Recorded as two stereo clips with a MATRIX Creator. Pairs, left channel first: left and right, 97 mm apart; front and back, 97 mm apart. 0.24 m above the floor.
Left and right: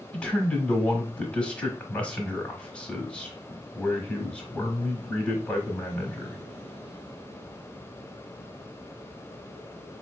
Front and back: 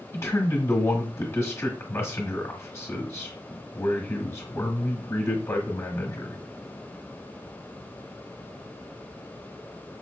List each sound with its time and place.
0.1 s a man speaking: 20° left, 1.1 m